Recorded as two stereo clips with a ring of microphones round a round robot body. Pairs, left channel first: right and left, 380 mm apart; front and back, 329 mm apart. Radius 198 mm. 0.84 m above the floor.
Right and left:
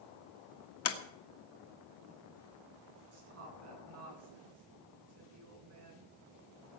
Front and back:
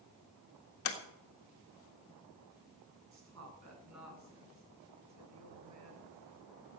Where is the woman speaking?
140° left, 9.5 m.